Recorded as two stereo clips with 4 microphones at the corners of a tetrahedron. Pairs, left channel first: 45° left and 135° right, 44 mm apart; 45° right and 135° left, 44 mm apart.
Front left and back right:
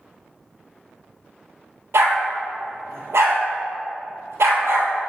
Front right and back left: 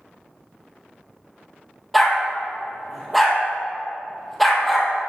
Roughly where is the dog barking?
Behind right.